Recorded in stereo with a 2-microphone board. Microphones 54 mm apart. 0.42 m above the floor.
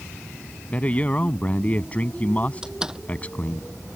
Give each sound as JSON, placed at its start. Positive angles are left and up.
{"t": 0.7, "sound": "a man speaking", "side_deg": 25}
{"t": 2.6, "sound": "a door slam", "side_deg": -15}